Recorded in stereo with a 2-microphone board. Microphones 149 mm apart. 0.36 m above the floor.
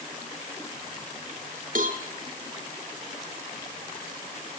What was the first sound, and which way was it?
A cowbell, 65° right (ahead or behind).